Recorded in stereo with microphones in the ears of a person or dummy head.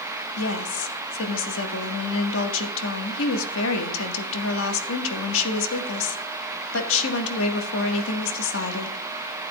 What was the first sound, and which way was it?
A woman speaking, 70° left (ahead or behind).